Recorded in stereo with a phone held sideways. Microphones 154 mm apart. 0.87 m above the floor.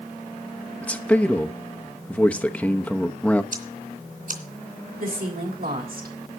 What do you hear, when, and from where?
0.8 s a man speaking: 10° left (ahead or behind), 0.9 m
3.5 s ticking: 65° right (ahead or behind), 2.5 m
5.0 s a woman speaking: 75° right (ahead or behind), 3.5 m